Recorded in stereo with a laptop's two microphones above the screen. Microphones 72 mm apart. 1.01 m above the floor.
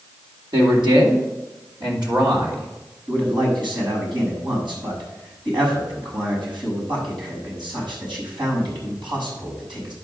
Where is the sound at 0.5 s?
75° right (ahead or behind), 3 m.